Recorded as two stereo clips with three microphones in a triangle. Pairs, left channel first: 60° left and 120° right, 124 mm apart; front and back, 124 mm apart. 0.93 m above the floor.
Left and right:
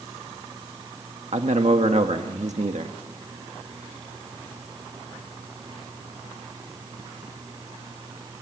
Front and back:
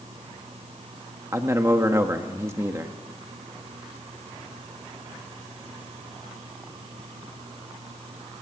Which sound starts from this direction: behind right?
A man speaking, at 1.3 s.